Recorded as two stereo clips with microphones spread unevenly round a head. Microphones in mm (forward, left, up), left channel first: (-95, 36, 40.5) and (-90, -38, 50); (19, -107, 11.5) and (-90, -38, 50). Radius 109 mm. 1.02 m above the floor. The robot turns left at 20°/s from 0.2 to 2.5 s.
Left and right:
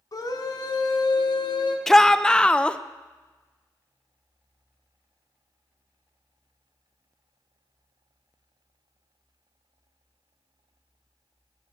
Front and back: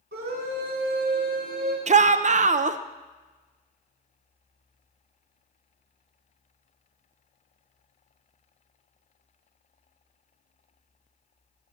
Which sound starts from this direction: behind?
A shout, at 1.9 s.